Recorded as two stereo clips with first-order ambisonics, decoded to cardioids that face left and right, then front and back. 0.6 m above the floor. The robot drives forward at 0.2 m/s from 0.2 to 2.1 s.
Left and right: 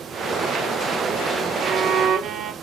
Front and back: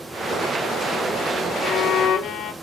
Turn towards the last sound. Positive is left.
turn(degrees=-50)